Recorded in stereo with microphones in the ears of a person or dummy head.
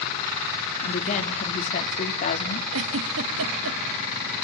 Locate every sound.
0.8 s a woman speaking: 45° left (ahead or behind), 3 m
2.7 s a giggle: 75° right (ahead or behind), 1.3 m